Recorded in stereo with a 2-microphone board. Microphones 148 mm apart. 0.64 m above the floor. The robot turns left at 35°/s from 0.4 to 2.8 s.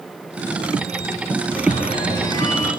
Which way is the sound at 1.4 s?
60° left.